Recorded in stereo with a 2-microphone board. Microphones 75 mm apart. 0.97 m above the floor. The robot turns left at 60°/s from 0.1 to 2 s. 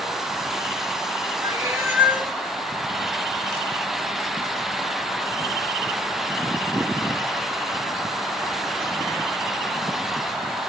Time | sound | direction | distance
1.4 | a cat meowing | 125° right | 0.6 m